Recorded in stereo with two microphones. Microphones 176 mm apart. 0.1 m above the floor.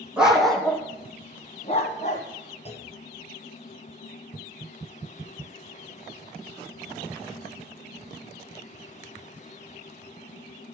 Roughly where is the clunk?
Left.